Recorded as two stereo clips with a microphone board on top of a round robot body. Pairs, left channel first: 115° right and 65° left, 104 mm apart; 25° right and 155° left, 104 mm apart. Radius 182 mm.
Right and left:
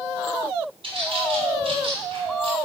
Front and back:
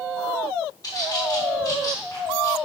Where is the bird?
30° left, 3.5 m.